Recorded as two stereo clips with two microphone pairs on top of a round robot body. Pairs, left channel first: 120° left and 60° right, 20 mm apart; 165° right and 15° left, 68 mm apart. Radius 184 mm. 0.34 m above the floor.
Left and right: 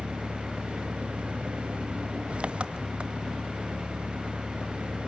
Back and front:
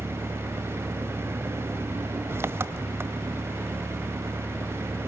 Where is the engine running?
40° right, 1.2 m.